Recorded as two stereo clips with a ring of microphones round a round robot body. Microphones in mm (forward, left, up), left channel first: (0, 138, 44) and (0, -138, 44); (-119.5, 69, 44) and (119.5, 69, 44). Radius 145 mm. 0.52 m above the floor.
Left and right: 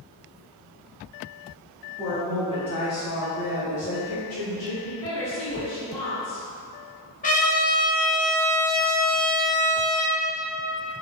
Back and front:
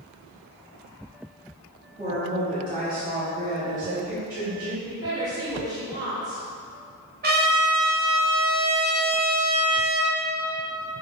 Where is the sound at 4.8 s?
70° left, 1.8 m.